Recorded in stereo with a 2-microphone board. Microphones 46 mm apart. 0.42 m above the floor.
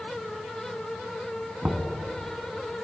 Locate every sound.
1.6 s knocking: 25° right (ahead or behind), 2.5 m